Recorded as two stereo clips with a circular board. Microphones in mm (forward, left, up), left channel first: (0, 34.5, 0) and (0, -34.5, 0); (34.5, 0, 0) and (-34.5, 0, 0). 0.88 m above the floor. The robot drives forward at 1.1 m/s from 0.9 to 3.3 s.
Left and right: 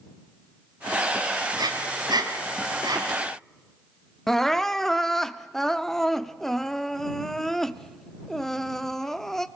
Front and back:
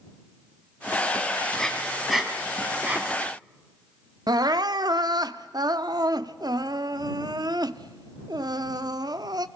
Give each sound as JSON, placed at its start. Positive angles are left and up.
{"t": 1.6, "sound": "breathing", "azimuth_deg": -80, "distance_m": 2.5}
{"t": 4.3, "sound": "crying", "azimuth_deg": 175, "distance_m": 0.6}